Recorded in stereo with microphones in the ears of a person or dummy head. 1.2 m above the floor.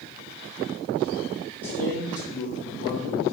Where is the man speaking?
10° left (ahead or behind), 1.9 m; by 3.2 s 45° left (ahead or behind), 1.8 m.